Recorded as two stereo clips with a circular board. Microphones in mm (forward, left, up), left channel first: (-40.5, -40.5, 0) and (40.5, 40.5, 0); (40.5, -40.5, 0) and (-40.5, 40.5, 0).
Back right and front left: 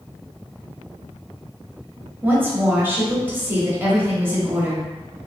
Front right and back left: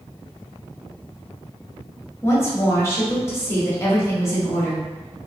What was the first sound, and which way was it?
A woman speaking, 5° right.